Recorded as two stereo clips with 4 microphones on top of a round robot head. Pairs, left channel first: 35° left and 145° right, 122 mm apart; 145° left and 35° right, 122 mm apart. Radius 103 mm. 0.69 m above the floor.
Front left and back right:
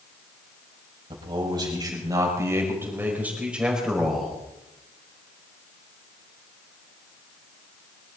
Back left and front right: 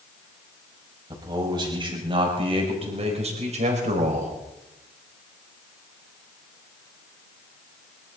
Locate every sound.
1.1 s a man speaking: 95° right, 5.5 m; by 4.4 s 50° right, 4.5 m